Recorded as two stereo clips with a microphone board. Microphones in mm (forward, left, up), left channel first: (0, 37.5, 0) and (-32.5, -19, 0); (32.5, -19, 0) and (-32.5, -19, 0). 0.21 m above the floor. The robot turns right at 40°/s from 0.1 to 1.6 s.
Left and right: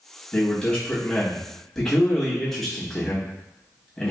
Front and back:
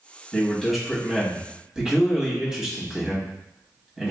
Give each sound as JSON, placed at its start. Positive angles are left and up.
{"t": 0.3, "sound": "a man speaking", "azimuth_deg": 80, "distance_m": 1.0}